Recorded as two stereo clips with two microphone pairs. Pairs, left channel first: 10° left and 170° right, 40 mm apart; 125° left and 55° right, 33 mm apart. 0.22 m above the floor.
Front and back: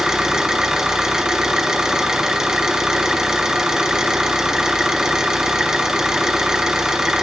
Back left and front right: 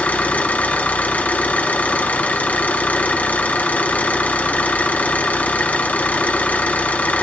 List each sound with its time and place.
0.0 s an engine running: 115° left, 2.5 m